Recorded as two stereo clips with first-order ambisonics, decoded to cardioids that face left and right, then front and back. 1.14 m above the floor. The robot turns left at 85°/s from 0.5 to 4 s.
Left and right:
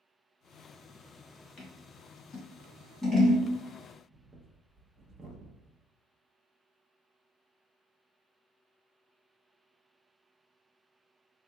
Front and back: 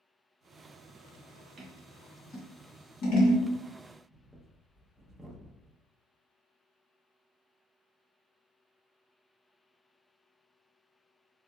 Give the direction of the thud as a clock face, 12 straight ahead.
I don't hear a thud.